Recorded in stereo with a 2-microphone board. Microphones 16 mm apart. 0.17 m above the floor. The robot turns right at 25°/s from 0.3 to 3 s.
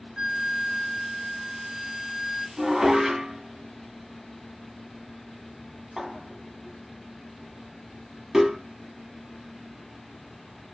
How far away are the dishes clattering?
About 0.7 m.